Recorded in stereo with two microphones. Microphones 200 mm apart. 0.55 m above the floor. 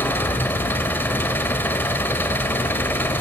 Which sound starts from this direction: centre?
An engine running, at 0.0 s.